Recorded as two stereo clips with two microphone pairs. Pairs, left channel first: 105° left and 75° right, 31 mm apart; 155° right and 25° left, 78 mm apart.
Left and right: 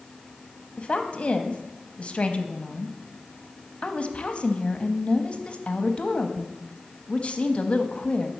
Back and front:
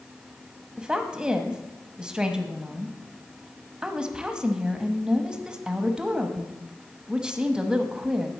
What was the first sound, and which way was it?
A woman speaking, 95° left.